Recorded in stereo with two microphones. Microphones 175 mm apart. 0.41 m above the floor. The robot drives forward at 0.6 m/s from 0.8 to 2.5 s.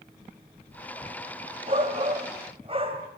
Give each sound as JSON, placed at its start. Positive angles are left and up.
{"t": 1.7, "sound": "a shout", "side_deg": -40, "distance_m": 2.0}